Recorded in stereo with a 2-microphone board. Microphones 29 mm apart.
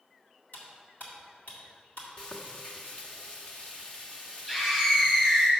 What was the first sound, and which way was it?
Cutlery clinking, 75° left (ahead or behind).